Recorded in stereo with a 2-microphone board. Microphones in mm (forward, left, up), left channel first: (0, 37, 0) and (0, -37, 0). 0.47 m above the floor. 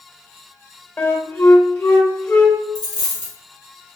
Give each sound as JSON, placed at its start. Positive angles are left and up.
{"t": 1.0, "sound": "a flute", "side_deg": 25, "distance_m": 0.8}
{"t": 2.8, "sound": "a dropped coin", "side_deg": -75, "distance_m": 1.6}